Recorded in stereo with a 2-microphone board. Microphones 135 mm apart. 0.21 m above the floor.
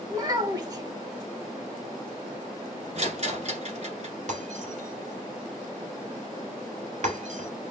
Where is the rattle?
55° right (ahead or behind), 1.3 m.